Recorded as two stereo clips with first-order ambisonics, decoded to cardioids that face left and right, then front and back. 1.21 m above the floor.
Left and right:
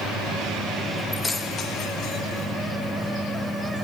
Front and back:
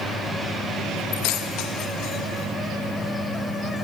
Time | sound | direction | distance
1.1 | keys jangling | 5° left | 0.7 m